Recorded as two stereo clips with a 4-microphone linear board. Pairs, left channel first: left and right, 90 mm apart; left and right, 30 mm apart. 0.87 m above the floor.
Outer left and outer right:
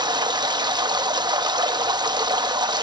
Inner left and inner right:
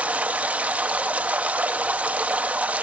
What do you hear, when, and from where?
0.0 s running water: 50° right (ahead or behind), 0.7 m